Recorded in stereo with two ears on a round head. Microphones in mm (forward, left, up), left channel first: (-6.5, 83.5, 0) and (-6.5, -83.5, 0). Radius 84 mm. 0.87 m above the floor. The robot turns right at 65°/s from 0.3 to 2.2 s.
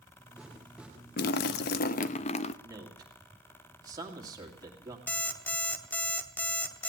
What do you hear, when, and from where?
1.2 s a splash: 70° left, 0.6 m; by 2.5 s 135° left, 0.6 m
2.6 s a man speaking: 20° right (ahead or behind), 2 m
5.1 s an alarm clock: 10° left (ahead or behind), 0.9 m